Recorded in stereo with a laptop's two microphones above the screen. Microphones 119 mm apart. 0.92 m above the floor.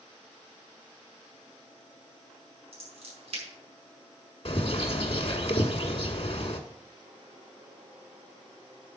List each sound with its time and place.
2.7 s scissors: 55° right (ahead or behind), 5.5 m
4.5 s a bird: 55° left (ahead or behind), 1.2 m